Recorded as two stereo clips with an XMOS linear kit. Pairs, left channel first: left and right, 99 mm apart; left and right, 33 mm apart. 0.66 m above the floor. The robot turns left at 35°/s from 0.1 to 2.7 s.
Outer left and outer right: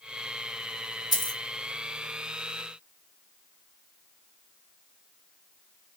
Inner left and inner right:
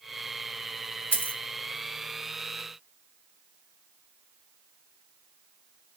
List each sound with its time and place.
1.1 s a dropped coin: 45° left (ahead or behind), 0.9 m; by 1.4 s 35° left (ahead or behind), 0.9 m